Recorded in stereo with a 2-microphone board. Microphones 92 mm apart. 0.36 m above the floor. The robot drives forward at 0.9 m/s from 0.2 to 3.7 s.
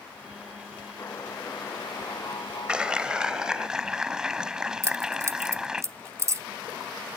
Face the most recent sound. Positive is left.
turn(degrees=-30)  # may be behind; listen again after turning